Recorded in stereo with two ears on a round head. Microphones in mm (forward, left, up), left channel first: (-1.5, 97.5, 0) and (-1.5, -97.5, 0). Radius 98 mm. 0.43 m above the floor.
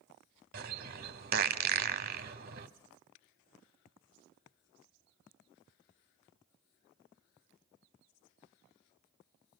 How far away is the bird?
About 1.0 m.